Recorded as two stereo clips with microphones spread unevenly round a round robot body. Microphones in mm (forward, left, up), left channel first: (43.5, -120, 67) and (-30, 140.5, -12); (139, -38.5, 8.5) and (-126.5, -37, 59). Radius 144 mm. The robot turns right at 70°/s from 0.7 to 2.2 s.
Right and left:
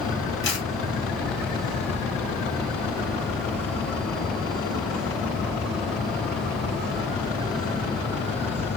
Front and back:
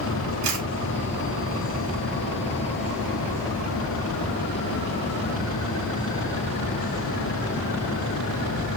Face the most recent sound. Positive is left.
turn(degrees=-50)